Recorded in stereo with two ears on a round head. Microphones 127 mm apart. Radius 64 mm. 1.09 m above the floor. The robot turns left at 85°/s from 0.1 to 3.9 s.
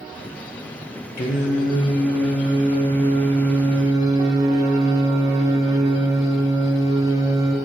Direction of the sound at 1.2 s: 85° left.